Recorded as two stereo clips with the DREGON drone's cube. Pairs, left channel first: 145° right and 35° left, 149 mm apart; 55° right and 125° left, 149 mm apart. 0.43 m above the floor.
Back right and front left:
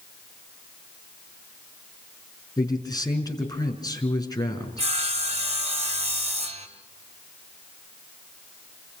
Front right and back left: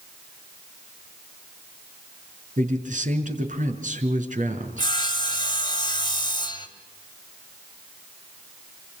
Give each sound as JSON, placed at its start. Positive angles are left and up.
{"t": 2.6, "sound": "a man speaking", "azimuth_deg": 150, "distance_m": 5.0}
{"t": 4.8, "sound": "sawing", "azimuth_deg": 0, "distance_m": 3.0}